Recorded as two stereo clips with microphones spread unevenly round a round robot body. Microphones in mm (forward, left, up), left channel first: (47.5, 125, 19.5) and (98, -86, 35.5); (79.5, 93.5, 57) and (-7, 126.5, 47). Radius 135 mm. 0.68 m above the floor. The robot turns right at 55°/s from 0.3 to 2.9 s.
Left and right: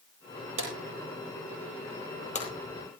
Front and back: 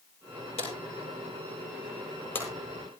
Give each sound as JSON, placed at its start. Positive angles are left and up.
{"t": 0.6, "sound": "a drawer", "azimuth_deg": -55, "distance_m": 9.0}